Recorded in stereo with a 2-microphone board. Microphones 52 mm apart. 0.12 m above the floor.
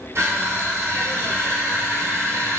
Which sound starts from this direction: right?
Crushing, at 0.1 s.